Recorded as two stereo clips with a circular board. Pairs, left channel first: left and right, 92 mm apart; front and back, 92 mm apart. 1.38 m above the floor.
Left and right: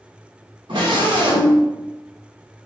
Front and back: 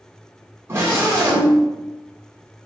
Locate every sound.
0.7 s a scream: 120° right, 1.5 m